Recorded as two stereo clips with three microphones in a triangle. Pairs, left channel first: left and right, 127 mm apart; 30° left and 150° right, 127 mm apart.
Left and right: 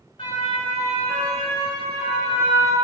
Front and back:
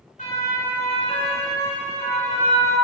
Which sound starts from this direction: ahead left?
A siren, at 0.2 s.